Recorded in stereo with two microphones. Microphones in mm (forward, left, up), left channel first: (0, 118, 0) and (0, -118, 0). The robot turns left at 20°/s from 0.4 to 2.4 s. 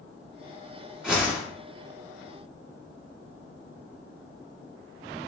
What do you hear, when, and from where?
1.0 s a whoosh: 5° right (ahead or behind), 1.4 m; by 1.4 s 10° right (ahead or behind), 1.4 m